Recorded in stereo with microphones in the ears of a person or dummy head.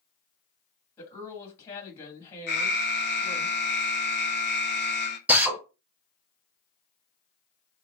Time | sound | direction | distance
1.0 | a woman speaking | 15° left (ahead or behind) | 1.9 m
2.5 | an alarm | 55° left (ahead or behind) | 0.5 m
5.3 | a drill | 5° right (ahead or behind) | 1.6 m